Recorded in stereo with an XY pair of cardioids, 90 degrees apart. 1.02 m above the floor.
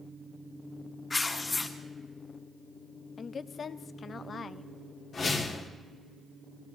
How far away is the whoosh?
About 1.9 m.